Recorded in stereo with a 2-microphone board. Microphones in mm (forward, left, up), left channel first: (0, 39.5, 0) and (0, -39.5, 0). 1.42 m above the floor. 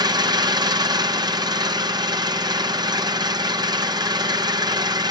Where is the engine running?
60° right (ahead or behind), 0.7 m.